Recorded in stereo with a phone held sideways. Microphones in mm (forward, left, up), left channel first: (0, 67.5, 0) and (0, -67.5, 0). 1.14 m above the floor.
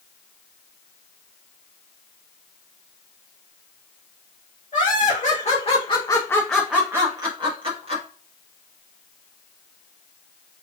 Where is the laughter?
70° left (ahead or behind), 1.3 m; by 8.0 s 50° right (ahead or behind), 1.3 m.